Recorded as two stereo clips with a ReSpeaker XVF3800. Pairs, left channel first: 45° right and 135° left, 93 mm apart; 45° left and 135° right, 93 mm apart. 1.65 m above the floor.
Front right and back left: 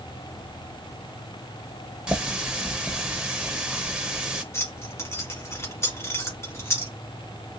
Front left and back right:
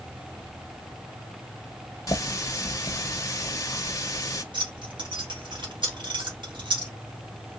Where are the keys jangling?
105° right, 1.8 m.